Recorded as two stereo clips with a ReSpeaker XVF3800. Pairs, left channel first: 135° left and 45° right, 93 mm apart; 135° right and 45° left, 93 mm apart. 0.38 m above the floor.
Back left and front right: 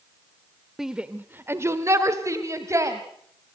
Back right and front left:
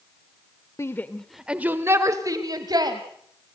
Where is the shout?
125° right, 1.0 m; by 3.0 s 10° left, 2.5 m.